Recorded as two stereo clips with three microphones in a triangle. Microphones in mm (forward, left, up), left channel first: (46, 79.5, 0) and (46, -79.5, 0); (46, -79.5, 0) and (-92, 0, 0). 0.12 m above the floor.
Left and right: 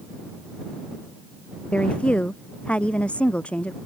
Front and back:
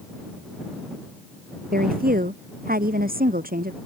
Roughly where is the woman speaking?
Behind.